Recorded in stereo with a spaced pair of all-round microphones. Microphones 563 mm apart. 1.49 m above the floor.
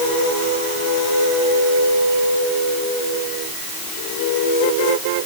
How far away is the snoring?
I don't hear snoring.